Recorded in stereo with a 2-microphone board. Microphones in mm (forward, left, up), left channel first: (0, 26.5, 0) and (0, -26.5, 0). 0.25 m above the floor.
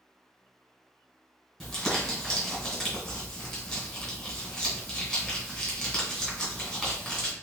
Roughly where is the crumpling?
Centre.